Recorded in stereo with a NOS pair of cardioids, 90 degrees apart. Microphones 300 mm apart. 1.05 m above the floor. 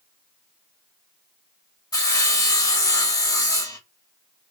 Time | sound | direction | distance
1.9 | sawing | 10° left | 0.7 m